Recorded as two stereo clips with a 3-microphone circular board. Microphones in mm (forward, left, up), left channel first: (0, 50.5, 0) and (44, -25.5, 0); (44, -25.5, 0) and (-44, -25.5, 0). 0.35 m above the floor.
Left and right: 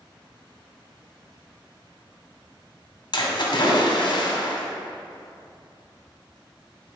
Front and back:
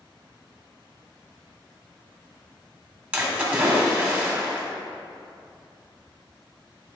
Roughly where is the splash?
Left.